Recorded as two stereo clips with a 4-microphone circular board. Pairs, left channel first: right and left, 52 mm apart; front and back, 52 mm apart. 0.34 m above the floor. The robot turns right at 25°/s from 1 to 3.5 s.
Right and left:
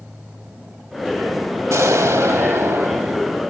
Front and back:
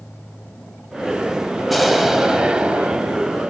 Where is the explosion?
90° left, 0.7 m; by 3.4 s 130° left, 0.7 m.